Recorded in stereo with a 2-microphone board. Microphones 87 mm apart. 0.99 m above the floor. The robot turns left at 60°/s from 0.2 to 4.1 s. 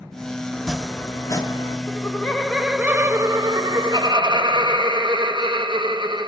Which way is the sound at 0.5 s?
170° right.